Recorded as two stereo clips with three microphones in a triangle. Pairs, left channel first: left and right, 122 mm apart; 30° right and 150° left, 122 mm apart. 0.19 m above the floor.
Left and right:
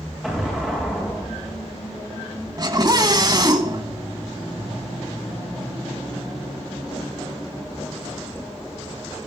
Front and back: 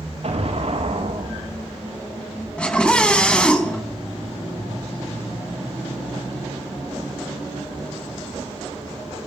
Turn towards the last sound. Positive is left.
turn(degrees=-105)